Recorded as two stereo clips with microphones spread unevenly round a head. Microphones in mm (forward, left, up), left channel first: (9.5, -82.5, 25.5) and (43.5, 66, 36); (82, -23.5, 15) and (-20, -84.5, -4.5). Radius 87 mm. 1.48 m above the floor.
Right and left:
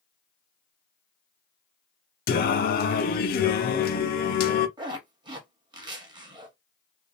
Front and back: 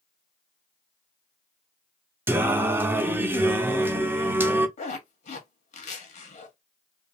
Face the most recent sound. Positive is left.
turn(degrees=15)